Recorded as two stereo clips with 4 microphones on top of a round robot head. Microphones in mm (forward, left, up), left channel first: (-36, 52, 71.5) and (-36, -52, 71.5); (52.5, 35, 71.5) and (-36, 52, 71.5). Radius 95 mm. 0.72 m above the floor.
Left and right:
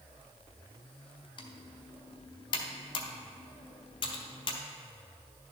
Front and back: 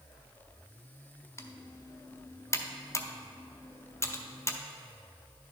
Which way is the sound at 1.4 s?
50° left.